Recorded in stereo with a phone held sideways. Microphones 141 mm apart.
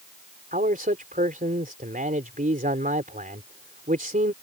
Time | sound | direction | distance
0.5 | a man speaking | 80° right | ?